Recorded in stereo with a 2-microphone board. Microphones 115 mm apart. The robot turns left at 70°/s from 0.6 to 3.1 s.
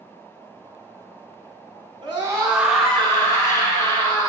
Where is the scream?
135° right, 4 m; by 4.3 s 150° left, 4 m.